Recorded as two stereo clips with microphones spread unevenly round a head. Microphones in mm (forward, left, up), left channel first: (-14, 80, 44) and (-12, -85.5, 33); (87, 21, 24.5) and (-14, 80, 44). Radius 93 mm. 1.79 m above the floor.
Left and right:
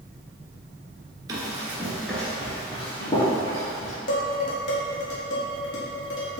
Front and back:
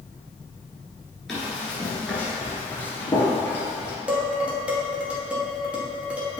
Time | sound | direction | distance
1.3 | running footsteps | 140° right | 1.8 m
4.1 | dishes clattering | 80° left | 1.9 m